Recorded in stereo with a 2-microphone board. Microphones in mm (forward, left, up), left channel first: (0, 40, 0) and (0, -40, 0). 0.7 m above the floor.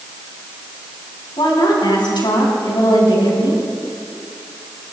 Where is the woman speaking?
70° left (ahead or behind), 5.5 m.